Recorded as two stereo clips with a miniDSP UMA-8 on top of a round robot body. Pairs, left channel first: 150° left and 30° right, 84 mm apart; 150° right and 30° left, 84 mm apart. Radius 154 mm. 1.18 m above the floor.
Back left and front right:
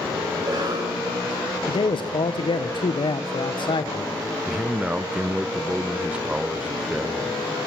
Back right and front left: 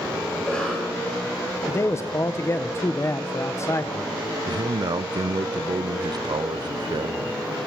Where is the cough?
70° right, 7 m.